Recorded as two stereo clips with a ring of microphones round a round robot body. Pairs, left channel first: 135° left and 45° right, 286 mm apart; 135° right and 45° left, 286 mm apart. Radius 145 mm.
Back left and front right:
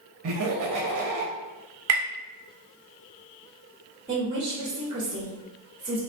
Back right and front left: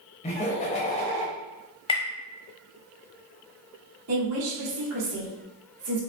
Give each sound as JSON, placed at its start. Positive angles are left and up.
{"t": 0.2, "sound": "laughter", "azimuth_deg": -70, "distance_m": 0.7}
{"t": 1.9, "sound": "tapping", "azimuth_deg": -65, "distance_m": 0.8}
{"t": 4.1, "sound": "a woman speaking", "azimuth_deg": 25, "distance_m": 1.6}